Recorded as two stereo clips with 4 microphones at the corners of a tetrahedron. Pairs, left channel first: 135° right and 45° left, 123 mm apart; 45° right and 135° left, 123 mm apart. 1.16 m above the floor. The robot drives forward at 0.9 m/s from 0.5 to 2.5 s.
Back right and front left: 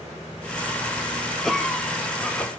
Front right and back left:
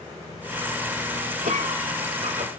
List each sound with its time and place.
1.4 s a cough: 135° left, 3.5 m; by 2.5 s 145° left, 4 m